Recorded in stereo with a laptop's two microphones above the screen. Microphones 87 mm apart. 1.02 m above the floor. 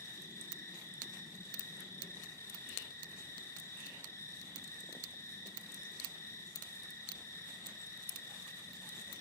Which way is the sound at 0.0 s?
30° left (ahead or behind).